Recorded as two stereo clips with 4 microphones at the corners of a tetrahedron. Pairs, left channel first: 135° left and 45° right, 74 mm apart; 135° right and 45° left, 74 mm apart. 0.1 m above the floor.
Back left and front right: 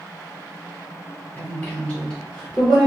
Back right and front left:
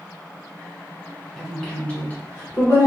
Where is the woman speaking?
145° left, 1.1 m; by 2.9 s 130° right, 1.3 m.